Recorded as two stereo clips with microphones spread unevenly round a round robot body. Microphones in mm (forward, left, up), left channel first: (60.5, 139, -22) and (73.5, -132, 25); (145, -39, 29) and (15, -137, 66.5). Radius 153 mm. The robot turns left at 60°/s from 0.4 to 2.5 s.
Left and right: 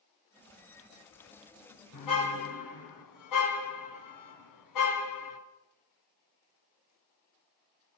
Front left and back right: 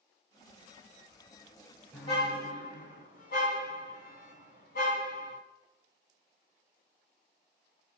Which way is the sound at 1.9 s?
120° left.